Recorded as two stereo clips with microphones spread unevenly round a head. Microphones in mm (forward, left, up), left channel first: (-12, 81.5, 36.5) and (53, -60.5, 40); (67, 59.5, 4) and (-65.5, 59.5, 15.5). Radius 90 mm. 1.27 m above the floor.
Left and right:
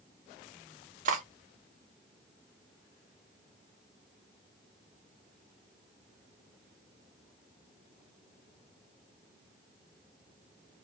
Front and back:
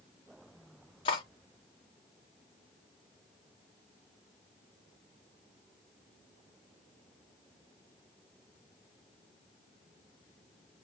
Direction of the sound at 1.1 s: 50° right.